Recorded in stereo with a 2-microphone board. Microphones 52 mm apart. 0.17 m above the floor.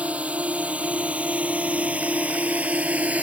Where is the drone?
25° right (ahead or behind).